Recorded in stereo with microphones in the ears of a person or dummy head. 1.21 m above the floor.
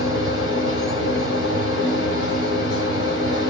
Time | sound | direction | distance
0.0 | a machine running | 60° left (ahead or behind) | 1.4 m